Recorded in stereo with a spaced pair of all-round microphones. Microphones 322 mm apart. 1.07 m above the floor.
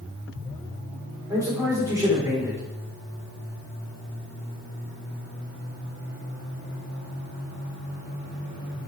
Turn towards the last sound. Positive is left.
turn(degrees=-10)  # may be behind; listen again after turning